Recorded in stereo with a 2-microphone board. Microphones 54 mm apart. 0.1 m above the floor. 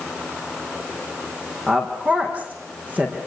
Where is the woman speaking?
30° right (ahead or behind), 5.5 m.